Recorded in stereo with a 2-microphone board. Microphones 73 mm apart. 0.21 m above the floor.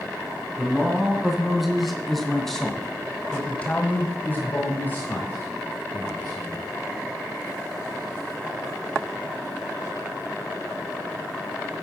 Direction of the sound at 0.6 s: 5° right (ahead or behind).